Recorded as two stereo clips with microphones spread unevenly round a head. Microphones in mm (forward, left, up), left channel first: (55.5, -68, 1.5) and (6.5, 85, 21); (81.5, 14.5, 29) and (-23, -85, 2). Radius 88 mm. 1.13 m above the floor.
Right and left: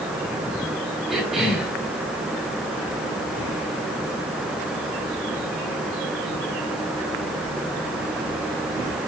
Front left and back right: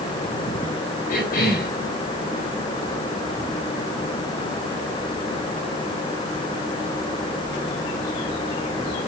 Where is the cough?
20° left, 5 m.